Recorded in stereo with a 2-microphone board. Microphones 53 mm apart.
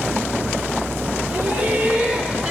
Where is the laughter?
35° right (ahead or behind), 3 m; by 2.5 s 15° right (ahead or behind), 3 m.